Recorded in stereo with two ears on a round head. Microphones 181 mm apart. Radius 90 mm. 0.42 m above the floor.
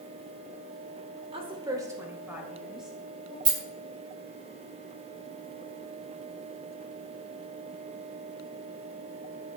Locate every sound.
1.3 s a woman speaking: 30° right (ahead or behind), 1.1 m; by 3.4 s centre (ahead or behind), 3 m
3.5 s a rattle: 25° right (ahead or behind), 1.2 m